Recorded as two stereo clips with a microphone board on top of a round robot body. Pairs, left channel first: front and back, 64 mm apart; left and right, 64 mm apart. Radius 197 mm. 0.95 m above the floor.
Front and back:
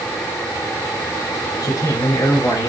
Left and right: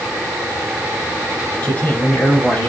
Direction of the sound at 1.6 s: 30° left.